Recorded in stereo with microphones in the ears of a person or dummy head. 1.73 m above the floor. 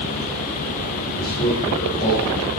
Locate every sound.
1.1 s a man speaking: 40° left (ahead or behind), 4.5 m; by 2.5 s 30° left (ahead or behind), 5.5 m